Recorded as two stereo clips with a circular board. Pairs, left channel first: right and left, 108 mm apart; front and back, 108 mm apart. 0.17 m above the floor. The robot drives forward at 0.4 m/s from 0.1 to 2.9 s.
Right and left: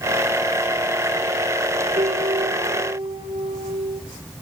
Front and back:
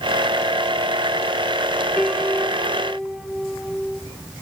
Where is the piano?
90° left, 3.5 m; by 4.0 s 95° left, 3.5 m.